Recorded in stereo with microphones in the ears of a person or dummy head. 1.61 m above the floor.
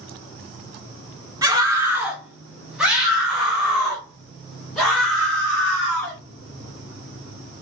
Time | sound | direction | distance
1.4 | a scream | 15° right (ahead or behind) | 1.3 m